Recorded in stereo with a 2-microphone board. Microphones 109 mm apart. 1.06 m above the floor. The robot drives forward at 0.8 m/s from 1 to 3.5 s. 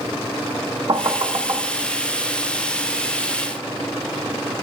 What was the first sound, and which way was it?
Knocking, 50° right (ahead or behind).